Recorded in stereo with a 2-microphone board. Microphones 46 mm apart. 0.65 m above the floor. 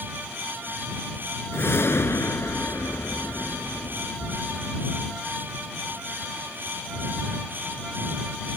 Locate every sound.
1.5 s a whoosh: 65° left (ahead or behind)